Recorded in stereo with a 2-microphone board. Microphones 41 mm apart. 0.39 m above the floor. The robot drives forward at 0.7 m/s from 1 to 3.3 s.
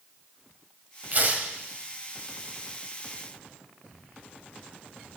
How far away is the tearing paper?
About 1.7 m.